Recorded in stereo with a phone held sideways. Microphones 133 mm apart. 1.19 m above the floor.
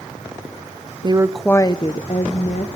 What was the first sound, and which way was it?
A woman speaking, 35° right (ahead or behind).